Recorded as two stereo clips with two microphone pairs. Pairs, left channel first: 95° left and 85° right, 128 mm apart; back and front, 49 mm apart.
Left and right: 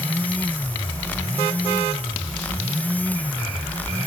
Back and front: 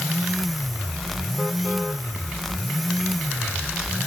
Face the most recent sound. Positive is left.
No sound to turn to.